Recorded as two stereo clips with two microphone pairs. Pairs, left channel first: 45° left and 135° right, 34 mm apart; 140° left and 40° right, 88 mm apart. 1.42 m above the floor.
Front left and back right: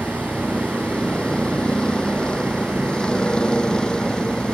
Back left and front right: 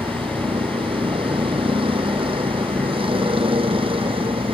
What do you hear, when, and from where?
0.0 s a vehicle: 20° right